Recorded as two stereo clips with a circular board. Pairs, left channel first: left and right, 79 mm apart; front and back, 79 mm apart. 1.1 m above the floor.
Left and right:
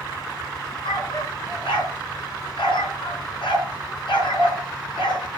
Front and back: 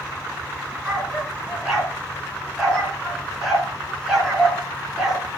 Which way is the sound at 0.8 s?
95° left.